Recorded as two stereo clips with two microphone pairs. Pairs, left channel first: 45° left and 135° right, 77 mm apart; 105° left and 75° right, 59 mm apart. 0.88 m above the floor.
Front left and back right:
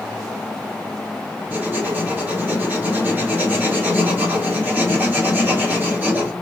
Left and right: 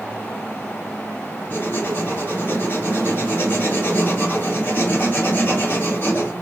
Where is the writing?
155° left, 3 m.